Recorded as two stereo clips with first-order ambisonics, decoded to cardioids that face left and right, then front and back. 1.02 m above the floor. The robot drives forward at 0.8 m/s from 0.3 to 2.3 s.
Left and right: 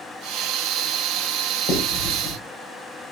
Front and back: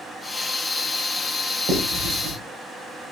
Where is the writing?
135° left, 6.5 m; by 2.4 s 140° left, 7 m.